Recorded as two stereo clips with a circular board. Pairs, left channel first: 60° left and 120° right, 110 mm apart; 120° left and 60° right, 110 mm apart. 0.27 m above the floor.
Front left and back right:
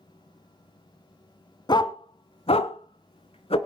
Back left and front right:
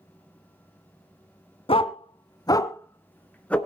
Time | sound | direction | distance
1.7 | a dog barking | 100° left | 1.0 m